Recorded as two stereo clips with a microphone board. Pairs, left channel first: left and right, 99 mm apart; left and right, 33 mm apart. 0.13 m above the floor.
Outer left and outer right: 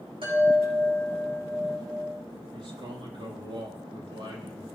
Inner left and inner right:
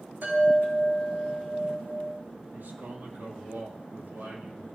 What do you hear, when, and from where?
0.2 s a chime: 60° right (ahead or behind), 7 m
2.5 s a man speaking: 55° right (ahead or behind), 5 m